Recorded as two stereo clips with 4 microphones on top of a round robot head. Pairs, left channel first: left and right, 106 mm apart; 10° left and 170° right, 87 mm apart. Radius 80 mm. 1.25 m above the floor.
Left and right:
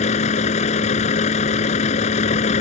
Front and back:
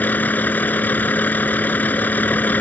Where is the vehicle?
80° left.